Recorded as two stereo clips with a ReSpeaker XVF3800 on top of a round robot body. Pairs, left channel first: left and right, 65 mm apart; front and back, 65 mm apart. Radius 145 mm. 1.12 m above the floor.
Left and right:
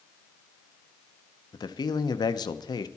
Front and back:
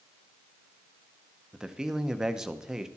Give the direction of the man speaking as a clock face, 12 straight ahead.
9 o'clock.